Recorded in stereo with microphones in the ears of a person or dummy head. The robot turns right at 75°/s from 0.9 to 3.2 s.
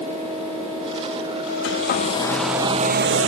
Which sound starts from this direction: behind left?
A hair dryer, at 1.6 s.